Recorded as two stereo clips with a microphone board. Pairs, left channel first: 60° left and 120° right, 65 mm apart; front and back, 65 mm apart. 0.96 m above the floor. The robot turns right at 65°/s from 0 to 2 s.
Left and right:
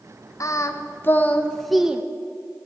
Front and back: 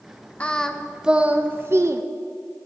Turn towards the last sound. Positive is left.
turn(degrees=170)